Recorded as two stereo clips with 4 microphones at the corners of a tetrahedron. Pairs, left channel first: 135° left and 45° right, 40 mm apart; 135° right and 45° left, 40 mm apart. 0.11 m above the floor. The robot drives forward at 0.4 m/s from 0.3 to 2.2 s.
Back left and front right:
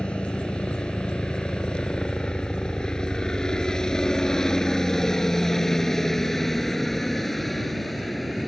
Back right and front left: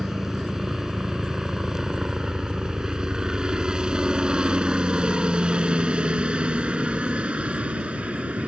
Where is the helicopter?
110° left; by 8.5 s 50° left.